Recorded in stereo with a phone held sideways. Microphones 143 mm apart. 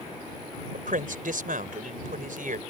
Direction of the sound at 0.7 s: 75° right (ahead or behind).